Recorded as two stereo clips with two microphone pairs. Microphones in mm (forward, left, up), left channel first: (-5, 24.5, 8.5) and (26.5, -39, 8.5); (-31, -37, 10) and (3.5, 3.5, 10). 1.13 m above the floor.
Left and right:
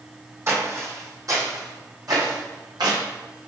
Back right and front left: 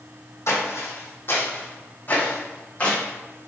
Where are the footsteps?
110° right, 3 m; by 3.0 s 60° right, 3.5 m.